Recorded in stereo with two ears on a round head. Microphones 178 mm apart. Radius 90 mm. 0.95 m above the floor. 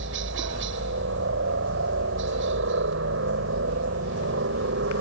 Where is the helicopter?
65° right (ahead or behind).